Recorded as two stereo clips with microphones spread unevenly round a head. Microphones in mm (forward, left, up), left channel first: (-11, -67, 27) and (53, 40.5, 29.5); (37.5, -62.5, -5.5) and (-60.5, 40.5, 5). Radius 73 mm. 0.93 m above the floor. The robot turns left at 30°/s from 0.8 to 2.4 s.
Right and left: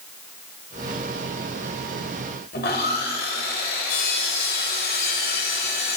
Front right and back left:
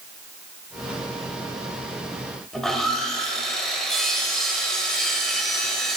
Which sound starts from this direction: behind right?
Sawing, at 2.5 s.